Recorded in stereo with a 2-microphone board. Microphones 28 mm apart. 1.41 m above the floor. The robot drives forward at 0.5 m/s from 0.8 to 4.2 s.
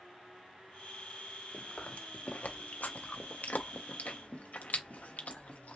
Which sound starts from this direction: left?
Chewing, at 1.5 s.